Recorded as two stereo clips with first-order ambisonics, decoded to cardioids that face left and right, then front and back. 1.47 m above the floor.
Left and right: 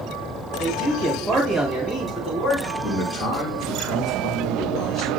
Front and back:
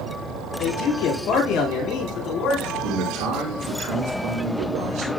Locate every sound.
0.6 s a man speaking: 20° left, 5.5 m; by 2.7 s 25° left, 3.5 m
2.8 s a man speaking: 150° left, 5.5 m